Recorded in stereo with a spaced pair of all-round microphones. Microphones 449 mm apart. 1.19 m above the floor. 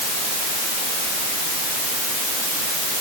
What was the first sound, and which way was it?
Only background noise.